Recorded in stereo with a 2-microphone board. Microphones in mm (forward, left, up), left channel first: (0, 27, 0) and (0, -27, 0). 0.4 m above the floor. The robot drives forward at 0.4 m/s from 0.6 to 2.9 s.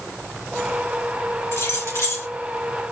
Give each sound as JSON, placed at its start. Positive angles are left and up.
{"t": 1.5, "sound": "keys jangling", "side_deg": 60, "distance_m": 2.5}